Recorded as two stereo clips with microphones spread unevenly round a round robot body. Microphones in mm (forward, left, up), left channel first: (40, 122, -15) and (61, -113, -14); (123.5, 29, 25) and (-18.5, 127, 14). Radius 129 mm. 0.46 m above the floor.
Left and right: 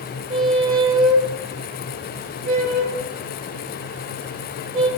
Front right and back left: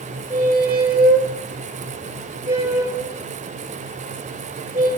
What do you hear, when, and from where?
0.3 s a squeak: 130° right, 0.5 m